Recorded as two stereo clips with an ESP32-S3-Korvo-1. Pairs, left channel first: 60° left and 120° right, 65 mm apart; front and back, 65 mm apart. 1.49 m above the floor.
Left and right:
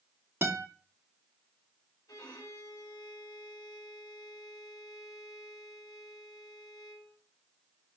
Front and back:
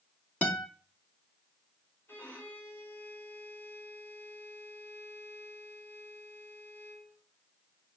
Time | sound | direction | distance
0.4 | a guitar | 65° right | 2.5 m
2.1 | a violin | 55° left | 6 m